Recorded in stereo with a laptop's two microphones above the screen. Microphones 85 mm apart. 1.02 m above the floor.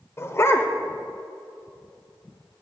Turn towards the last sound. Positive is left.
turn(degrees=30)  # may be behind; listen again after turning